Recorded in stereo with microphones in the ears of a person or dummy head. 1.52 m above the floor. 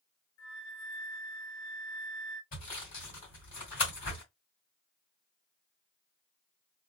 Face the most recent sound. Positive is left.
turn(degrees=40)  # may be behind; listen again after turning